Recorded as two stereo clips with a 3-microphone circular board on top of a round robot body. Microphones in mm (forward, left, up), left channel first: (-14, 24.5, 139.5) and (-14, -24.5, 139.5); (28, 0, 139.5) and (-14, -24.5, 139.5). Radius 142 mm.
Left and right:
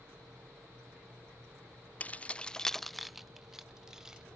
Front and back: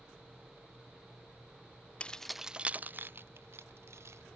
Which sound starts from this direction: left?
Keys jangling, at 2.0 s.